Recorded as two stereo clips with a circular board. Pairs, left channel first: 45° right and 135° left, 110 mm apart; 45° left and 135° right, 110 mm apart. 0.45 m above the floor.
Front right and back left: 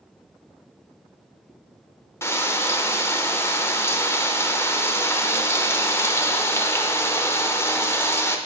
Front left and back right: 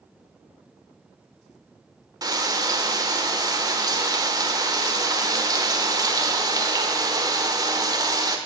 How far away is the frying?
About 1.0 m.